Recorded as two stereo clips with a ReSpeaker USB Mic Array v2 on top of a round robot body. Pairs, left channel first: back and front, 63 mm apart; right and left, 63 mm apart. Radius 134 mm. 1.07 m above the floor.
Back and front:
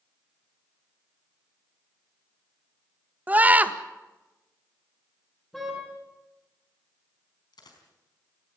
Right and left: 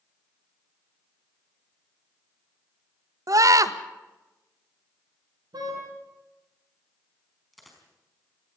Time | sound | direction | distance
3.3 | a scream | 65° left | 1.7 m
5.5 | a car horn | 95° left | 7.5 m
7.5 | a dropped coin | straight behind | 4.5 m